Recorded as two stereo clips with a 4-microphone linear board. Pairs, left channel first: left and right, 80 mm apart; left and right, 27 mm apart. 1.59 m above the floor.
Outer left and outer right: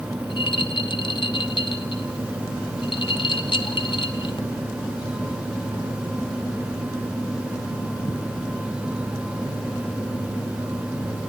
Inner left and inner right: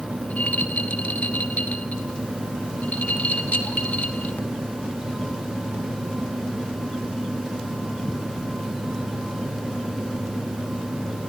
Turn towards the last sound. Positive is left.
turn(degrees=85)